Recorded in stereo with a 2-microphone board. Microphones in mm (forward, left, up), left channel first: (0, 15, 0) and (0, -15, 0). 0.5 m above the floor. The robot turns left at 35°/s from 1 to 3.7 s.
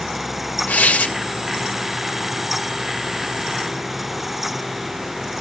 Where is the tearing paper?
60° left (ahead or behind), 2 m.